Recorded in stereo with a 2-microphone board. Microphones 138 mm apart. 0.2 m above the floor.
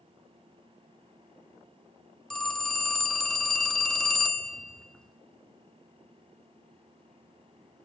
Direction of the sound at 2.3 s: 5° left (ahead or behind).